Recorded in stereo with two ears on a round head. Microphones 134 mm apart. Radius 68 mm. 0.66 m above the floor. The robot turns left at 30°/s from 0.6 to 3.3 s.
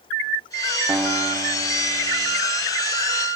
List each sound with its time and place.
0.9 s a guitar: 5° right, 0.8 m; by 2.4 s 50° right, 0.8 m